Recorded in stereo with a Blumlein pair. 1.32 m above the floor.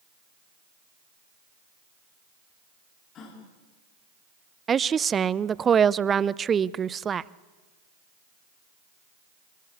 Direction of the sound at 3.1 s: 30° left.